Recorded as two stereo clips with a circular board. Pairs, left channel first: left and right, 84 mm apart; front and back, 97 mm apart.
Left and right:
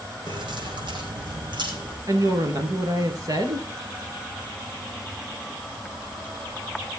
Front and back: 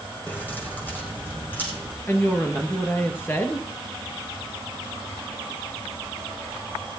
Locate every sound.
0.3 s keys jangling: 75° right, 3.5 m; by 2.0 s 70° right, 5.5 m
2.1 s a woman speaking: 65° right, 1.9 m